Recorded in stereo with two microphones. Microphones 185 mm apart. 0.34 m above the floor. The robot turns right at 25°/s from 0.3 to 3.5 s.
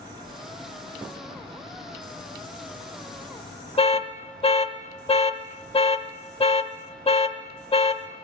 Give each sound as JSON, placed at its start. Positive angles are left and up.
{"t": 3.8, "sound": "an alarm", "side_deg": 35, "distance_m": 0.6}